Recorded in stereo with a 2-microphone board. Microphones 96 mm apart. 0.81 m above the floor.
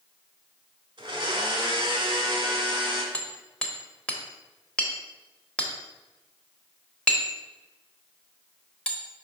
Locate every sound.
1.0 s a blender: 50° right (ahead or behind), 1.3 m
3.1 s hammering: 10° left (ahead or behind), 1.0 m